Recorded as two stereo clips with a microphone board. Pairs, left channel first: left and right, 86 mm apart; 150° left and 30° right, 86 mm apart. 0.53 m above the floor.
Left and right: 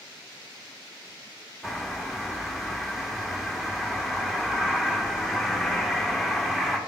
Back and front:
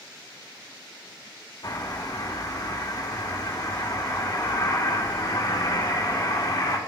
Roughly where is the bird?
Behind.